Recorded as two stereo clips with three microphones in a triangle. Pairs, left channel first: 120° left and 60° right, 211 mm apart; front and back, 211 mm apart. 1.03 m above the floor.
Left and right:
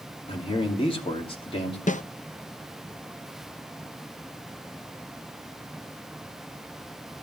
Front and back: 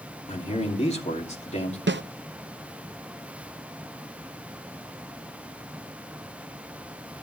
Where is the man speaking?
55° left, 2.5 m.